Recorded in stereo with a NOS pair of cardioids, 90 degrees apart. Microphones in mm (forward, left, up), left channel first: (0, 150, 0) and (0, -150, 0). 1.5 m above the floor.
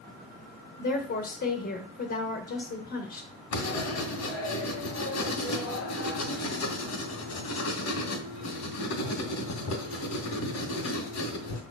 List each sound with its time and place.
0.8 s a woman speaking: 45° left, 1.7 m
3.5 s writing: 60° left, 2.5 m